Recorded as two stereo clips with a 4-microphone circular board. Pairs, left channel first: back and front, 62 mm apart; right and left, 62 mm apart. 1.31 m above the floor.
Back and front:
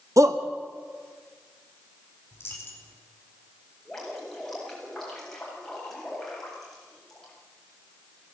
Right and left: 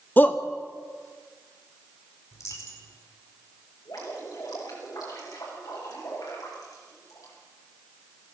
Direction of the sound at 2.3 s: 125° right.